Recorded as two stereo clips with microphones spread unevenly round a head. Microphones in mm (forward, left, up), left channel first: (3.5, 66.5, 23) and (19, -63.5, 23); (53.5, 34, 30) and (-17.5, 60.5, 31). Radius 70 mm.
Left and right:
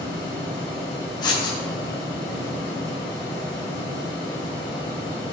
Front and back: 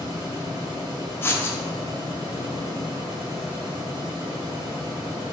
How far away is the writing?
About 1.1 m.